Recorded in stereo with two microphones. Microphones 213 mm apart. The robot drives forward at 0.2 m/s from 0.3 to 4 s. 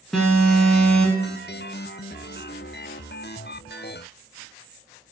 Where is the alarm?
5° left (ahead or behind), 0.9 m.